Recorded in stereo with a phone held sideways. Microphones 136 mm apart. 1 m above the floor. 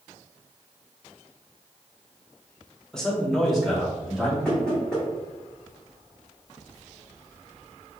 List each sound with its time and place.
2.9 s a man speaking: 5° left (ahead or behind), 0.8 m; by 4.3 s centre (ahead or behind), 2 m
4.5 s knocking: 5° left (ahead or behind), 1.9 m